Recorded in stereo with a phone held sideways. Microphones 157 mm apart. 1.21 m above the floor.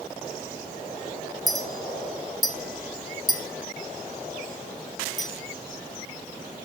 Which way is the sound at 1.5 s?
Centre (ahead or behind).